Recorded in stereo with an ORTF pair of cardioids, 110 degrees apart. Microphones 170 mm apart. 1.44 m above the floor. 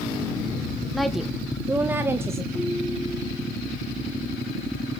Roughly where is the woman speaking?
Ahead.